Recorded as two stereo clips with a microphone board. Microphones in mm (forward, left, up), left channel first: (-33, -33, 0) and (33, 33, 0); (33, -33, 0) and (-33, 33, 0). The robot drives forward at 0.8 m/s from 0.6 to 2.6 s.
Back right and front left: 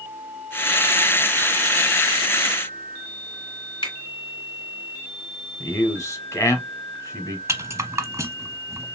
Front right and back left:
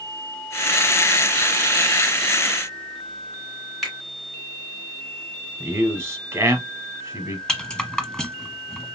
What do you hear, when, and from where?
3.8 s a finger snap: 135° right, 2 m
5.6 s a man speaking: 175° right, 1.3 m
7.5 s a rattle: 30° left, 0.6 m